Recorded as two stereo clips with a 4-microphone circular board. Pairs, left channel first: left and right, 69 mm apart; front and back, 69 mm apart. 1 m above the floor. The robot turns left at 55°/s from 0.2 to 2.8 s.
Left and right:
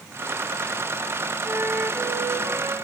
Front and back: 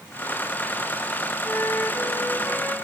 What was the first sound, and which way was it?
A flute, 5° left.